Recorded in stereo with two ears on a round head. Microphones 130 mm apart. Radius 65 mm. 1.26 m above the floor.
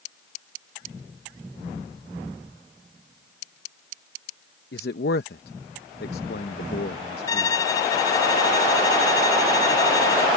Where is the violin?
25° left (ahead or behind).